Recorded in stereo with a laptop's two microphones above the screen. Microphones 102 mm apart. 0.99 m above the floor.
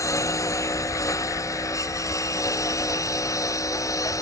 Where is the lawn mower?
30° left (ahead or behind); by 4.2 s 35° left (ahead or behind).